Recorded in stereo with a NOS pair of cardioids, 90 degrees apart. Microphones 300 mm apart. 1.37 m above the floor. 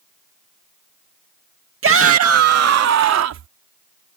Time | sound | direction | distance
1.8 | a shout | 45° right | ?